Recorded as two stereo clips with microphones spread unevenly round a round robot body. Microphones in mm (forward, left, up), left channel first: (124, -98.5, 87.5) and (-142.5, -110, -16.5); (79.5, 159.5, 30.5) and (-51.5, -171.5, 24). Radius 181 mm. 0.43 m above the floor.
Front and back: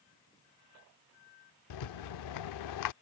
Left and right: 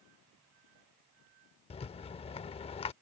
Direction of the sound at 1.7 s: 5° right.